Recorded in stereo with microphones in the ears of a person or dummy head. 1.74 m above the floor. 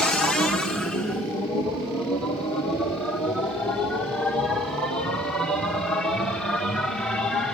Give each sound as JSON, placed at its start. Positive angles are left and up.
{"t": 0.0, "sound": "a machine running", "side_deg": 5, "distance_m": 1.4}